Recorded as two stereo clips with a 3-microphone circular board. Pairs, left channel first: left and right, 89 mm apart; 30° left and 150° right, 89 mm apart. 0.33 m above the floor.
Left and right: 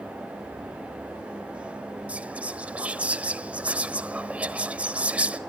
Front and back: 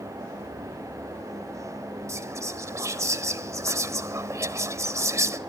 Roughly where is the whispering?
Behind right.